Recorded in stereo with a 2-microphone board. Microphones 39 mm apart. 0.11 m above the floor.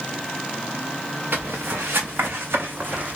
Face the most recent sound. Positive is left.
turn(degrees=-40)  # may be behind; listen again after turning